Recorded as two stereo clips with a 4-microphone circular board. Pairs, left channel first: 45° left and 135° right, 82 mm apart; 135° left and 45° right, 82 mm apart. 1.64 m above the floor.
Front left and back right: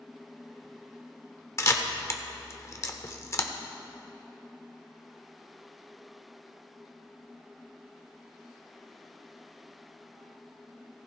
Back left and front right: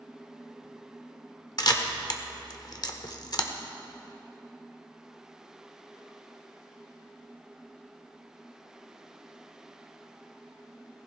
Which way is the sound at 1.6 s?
100° left.